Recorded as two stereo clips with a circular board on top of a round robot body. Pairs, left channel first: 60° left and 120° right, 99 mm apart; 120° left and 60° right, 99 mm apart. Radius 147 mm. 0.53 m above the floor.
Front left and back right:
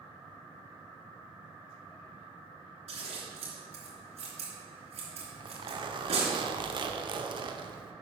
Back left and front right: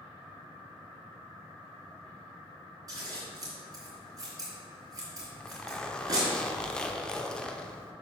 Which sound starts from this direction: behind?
A zipper, at 5.2 s.